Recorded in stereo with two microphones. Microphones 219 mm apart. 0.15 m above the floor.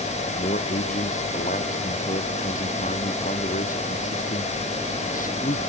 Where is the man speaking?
35° left (ahead or behind).